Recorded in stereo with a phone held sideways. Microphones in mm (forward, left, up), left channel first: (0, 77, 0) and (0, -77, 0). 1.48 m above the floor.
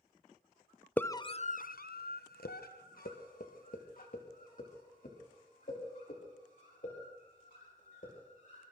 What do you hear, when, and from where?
1.0 s a scream: 10° left (ahead or behind), 0.6 m; by 8.6 s 55° left (ahead or behind), 6 m